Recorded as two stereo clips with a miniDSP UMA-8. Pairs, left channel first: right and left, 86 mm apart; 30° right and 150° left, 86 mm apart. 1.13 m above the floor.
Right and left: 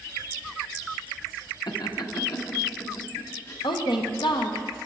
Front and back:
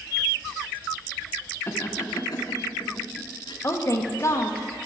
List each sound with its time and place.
1.7 s laughter: 85° right, 1.0 m; by 3.5 s 45° right, 1.9 m
3.6 s a woman speaking: 80° right, 0.9 m